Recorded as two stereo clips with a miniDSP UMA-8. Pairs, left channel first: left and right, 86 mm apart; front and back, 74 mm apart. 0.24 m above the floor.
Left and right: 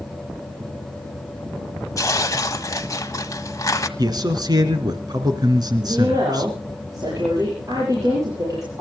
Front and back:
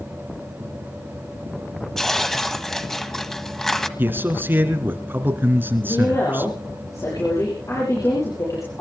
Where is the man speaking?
120° right, 3 m.